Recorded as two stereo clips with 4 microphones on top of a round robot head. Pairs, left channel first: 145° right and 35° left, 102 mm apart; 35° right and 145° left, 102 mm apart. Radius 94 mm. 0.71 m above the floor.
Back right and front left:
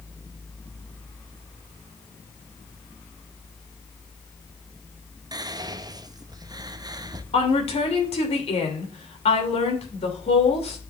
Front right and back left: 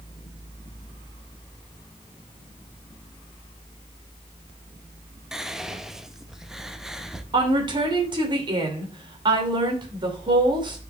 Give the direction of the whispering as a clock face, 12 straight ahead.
10 o'clock.